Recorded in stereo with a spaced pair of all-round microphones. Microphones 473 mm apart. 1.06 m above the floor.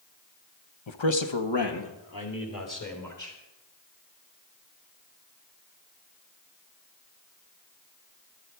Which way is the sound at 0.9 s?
70° left (ahead or behind).